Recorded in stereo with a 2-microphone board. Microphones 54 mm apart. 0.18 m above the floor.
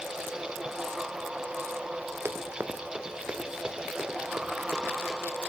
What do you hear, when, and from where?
2.2 s running footsteps: 50° right (ahead or behind), 1.7 m; by 5.2 s 10° right (ahead or behind), 4 m